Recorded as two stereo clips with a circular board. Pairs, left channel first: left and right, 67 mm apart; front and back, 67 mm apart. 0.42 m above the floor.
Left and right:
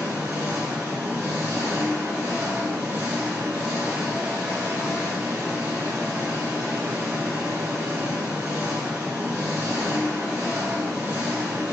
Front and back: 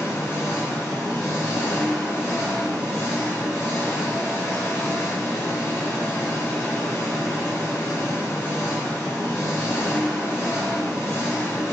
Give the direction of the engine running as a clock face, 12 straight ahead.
1 o'clock.